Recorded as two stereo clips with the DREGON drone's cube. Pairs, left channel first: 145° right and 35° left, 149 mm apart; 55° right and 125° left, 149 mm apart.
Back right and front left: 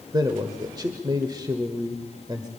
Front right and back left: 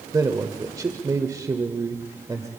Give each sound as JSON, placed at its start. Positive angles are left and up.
{"t": 0.1, "sound": "a man speaking", "azimuth_deg": 75, "distance_m": 1.4}